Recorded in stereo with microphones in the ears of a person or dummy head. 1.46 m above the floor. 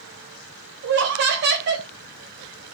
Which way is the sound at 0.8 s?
60° right (ahead or behind).